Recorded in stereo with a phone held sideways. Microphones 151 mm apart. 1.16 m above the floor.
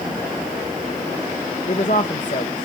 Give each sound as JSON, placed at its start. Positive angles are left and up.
{"t": 1.7, "sound": "a woman speaking", "side_deg": 55, "distance_m": 1.0}